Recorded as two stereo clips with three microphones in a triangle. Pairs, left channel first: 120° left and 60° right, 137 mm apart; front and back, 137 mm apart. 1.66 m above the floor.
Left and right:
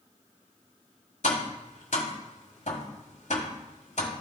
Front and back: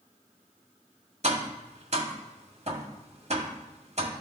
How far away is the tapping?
About 1.6 m.